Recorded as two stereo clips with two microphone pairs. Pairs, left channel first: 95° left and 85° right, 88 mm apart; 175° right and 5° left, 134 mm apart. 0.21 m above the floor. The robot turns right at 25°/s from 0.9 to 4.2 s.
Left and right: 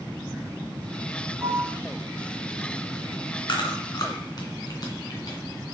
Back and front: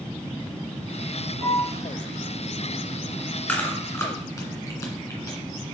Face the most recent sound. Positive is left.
turn(degrees=120)